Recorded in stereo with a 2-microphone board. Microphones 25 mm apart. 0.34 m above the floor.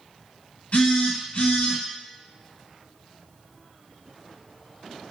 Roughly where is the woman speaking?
I don't hear a woman speaking.